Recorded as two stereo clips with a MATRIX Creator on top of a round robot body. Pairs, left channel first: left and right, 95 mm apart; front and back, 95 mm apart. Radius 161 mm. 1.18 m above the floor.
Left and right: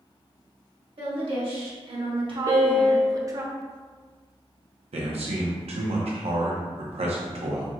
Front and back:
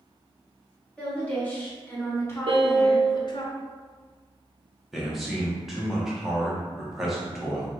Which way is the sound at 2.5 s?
135° right.